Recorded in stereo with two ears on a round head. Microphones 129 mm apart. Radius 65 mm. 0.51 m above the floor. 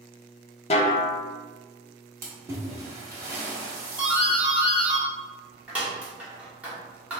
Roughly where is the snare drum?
Left.